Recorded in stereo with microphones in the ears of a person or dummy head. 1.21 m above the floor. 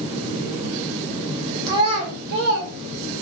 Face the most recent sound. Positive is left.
turn(degrees=-65)  # may be behind; listen again after turning